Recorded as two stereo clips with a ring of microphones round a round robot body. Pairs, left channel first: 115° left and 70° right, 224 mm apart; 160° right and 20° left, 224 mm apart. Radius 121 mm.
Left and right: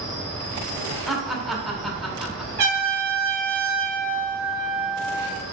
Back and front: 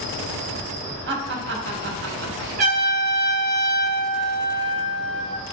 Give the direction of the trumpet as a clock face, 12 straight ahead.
1 o'clock.